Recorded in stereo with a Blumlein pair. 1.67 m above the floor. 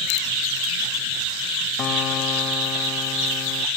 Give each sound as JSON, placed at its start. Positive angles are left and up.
{"t": 1.8, "sound": "a guitar", "azimuth_deg": 30}